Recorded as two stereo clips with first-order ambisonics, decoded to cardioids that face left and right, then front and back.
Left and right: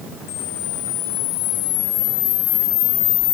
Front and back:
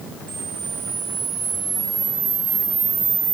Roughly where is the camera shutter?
Behind left.